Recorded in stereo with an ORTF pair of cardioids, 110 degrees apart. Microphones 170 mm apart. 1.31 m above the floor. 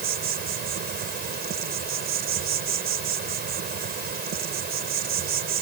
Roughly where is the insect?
Ahead right.